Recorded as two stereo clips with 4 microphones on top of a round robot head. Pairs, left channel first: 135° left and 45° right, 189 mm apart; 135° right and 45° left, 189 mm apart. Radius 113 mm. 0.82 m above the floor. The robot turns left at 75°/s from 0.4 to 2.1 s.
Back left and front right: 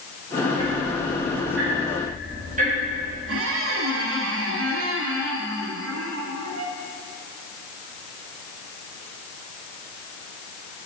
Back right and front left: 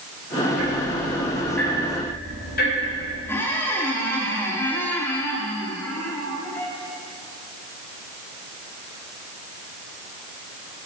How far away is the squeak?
About 1.2 m.